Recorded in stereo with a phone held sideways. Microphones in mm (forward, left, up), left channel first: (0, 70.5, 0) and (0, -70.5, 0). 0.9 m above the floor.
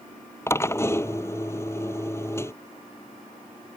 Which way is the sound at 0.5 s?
20° left (ahead or behind).